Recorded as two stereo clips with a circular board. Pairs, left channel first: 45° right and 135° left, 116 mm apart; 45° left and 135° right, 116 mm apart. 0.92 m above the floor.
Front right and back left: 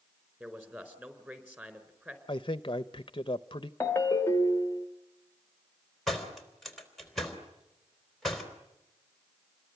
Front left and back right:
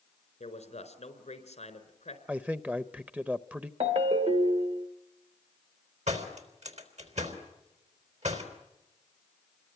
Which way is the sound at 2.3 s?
65° right.